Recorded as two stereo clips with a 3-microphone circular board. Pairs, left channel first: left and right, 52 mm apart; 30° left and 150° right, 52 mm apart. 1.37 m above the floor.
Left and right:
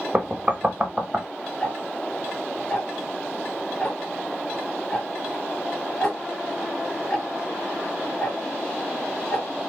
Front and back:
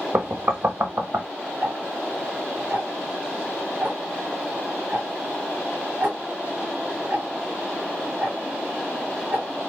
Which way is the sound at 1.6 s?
155° left.